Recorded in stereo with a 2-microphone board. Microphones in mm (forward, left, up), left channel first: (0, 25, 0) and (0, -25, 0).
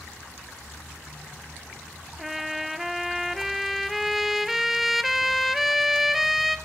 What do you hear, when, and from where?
2.2 s a trumpet: 5° right (ahead or behind), 0.8 m